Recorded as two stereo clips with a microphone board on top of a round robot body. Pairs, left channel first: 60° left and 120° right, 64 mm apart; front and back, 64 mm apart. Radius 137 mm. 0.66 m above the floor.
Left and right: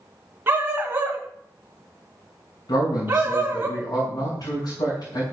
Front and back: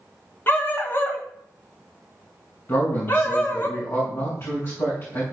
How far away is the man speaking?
About 6 m.